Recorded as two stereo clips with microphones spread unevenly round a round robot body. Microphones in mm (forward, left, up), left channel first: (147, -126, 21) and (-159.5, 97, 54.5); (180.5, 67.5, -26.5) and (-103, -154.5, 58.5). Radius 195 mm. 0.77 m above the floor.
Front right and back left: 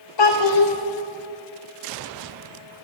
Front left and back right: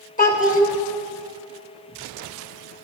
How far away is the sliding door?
I don't hear a sliding door.